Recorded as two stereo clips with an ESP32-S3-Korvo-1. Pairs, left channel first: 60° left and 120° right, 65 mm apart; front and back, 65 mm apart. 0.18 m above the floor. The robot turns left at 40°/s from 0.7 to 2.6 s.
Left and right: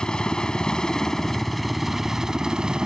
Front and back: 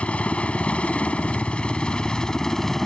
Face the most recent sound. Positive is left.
turn(degrees=-65)